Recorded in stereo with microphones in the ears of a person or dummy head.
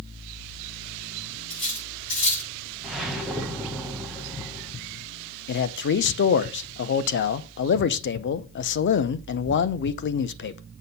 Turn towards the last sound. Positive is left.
turn(degrees=55)  # may be behind; listen again after turning